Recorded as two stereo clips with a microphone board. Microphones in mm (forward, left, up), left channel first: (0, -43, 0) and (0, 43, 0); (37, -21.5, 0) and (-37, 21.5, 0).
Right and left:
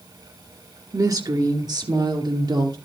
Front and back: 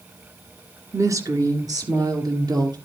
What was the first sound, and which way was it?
A woman speaking, 115° left.